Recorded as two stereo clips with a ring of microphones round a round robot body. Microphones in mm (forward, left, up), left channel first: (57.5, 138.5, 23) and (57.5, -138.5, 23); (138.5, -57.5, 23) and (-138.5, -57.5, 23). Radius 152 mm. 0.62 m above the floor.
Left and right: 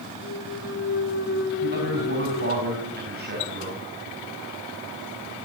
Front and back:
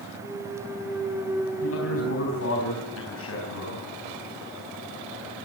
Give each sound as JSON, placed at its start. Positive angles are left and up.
{"t": 0.2, "sound": "a clunk", "azimuth_deg": 100, "distance_m": 1.5}
{"t": 1.6, "sound": "a man speaking", "azimuth_deg": -35, "distance_m": 4.0}